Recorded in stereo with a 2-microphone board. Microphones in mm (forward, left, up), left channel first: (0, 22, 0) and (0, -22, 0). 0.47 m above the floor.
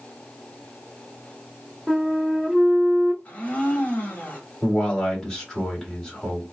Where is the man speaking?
10° left (ahead or behind), 1.7 m.